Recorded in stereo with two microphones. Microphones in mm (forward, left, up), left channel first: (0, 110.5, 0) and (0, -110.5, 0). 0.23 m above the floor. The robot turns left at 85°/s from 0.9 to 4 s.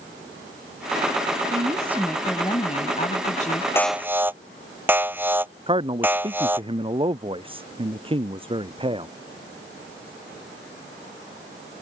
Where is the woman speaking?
130° right; by 3.6 s 45° left.